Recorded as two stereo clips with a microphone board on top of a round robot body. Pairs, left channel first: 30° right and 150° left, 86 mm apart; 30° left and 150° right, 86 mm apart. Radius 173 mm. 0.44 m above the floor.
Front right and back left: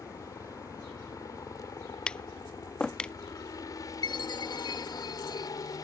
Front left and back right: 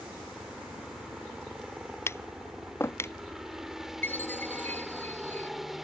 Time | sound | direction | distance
0.0 | a helicopter | 70° right | ?
2.1 | tapping | 40° left | ?
4.0 | a chime | 30° right | ?